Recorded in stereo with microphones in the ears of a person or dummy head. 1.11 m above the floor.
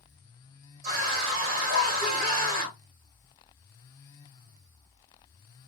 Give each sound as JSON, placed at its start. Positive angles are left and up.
{"t": 0.8, "sound": "a scream", "side_deg": -50, "distance_m": 1.5}